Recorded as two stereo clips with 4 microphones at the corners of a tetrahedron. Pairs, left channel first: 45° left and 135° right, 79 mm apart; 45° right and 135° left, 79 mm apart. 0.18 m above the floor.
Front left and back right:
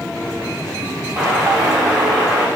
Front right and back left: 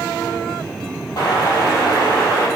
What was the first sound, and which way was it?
An explosion, 60° right.